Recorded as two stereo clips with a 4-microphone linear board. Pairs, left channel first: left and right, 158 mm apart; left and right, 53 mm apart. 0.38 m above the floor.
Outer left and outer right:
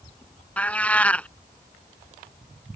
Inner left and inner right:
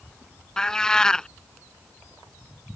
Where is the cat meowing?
10° left (ahead or behind).